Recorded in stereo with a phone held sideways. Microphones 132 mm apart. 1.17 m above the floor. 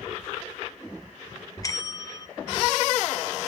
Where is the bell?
25° left (ahead or behind), 0.5 m.